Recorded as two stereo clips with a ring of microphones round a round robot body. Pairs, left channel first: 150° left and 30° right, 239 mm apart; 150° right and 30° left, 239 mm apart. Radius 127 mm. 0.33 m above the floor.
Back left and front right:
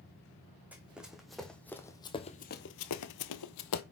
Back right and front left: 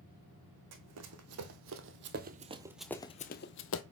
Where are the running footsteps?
55° left, 1.6 m; by 3.8 s 175° left, 0.9 m.